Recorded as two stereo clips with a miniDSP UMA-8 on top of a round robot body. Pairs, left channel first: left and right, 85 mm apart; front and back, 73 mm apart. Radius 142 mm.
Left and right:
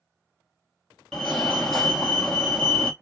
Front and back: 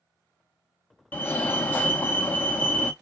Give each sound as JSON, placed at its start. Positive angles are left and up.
{"t": 1.1, "sound": "a fire alarm", "azimuth_deg": 15, "distance_m": 2.0}